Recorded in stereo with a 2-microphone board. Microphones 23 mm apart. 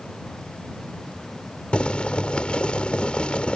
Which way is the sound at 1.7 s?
45° left (ahead or behind).